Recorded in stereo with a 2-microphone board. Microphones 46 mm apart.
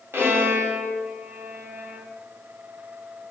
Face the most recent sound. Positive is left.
turn(degrees=-60)  # may be behind; listen again after turning